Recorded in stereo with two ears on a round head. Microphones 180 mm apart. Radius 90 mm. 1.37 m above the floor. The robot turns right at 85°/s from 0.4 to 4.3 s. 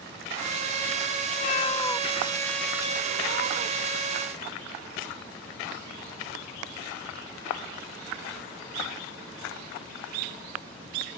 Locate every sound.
1.3 s a cat meowing: 115° left; by 4.0 s 15° right